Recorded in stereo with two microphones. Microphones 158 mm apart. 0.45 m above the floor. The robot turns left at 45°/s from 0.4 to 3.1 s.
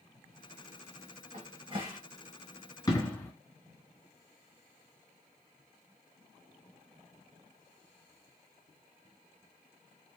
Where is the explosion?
25° left (ahead or behind), 1.2 m; by 3.3 s 15° left (ahead or behind), 1.2 m.